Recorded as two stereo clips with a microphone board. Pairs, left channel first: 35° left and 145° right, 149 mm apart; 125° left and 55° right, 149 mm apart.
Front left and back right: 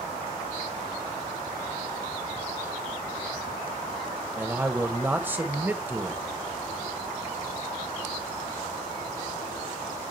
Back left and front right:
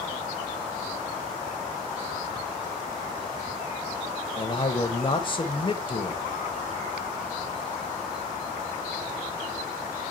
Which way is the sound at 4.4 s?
145° left.